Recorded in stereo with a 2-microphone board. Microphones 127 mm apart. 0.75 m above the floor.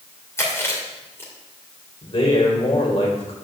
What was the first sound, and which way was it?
Chewing, 20° left (ahead or behind).